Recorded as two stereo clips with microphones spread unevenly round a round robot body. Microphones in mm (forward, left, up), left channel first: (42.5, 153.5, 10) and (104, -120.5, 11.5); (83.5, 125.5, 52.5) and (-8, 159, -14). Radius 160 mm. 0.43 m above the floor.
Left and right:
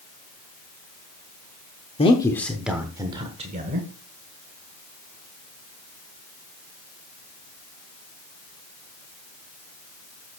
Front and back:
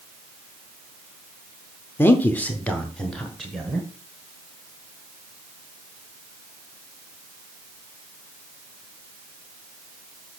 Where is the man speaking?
125° left, 0.8 m; by 3.9 s 135° right, 1.3 m.